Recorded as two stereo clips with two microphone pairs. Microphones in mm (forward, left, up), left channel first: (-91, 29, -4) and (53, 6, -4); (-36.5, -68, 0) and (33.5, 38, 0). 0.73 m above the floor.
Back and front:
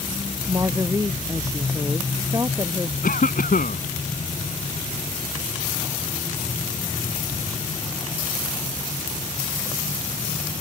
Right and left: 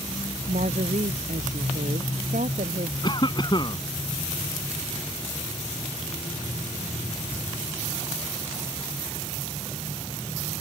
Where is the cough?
Straight behind.